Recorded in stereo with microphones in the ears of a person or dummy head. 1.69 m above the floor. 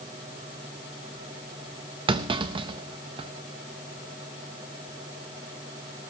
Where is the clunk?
25° right (ahead or behind), 0.7 m.